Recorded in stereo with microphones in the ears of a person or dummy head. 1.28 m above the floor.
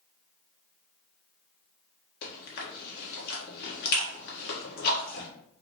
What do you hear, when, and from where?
2.2 s chewing: 50° left (ahead or behind), 1.2 m